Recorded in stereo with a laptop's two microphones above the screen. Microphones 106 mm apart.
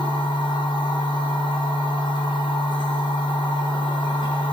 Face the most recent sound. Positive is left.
turn(degrees=45)  # may be behind; listen again after turning